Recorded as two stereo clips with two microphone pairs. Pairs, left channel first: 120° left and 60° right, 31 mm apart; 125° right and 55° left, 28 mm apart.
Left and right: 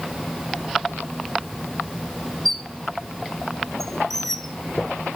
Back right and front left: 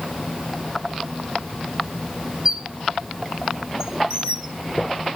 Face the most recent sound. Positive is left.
turn(degrees=45)